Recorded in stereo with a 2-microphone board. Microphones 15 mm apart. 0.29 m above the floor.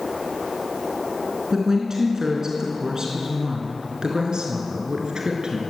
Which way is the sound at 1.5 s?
35° right (ahead or behind).